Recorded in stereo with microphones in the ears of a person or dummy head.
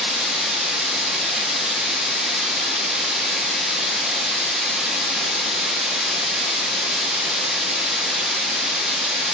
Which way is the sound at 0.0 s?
Centre (ahead or behind).